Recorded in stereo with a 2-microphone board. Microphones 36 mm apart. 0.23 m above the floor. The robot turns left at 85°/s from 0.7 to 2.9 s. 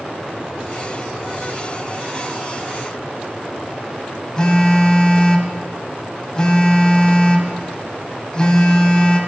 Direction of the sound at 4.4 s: 20° left (ahead or behind).